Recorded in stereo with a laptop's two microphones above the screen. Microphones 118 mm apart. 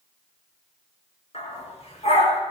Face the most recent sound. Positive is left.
turn(degrees=65)  # may be behind; listen again after turning